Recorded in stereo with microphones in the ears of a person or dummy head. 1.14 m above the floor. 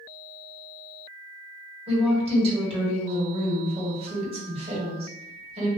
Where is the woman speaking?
30° right (ahead or behind), 1.6 m.